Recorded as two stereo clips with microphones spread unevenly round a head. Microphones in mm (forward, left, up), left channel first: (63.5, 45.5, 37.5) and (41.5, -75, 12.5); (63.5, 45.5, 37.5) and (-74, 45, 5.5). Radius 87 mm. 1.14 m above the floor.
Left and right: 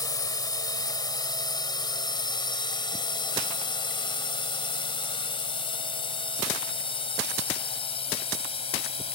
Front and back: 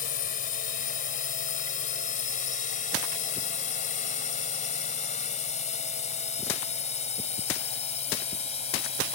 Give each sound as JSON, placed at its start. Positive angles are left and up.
{"t": 0.0, "sound": "a drone", "azimuth_deg": 20}